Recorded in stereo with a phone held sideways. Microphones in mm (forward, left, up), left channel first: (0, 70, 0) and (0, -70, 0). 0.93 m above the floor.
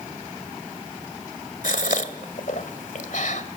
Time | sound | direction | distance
1.6 | a gasp | 70° left (ahead or behind) | 1.9 m